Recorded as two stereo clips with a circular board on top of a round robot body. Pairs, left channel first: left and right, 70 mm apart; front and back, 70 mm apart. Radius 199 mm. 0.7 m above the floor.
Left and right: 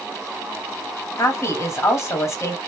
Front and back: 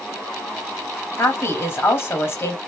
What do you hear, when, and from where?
1.2 s a woman speaking: 50° left, 1.7 m